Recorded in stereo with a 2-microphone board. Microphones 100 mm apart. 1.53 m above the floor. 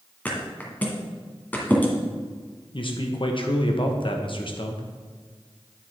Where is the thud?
15° left (ahead or behind), 1.7 m.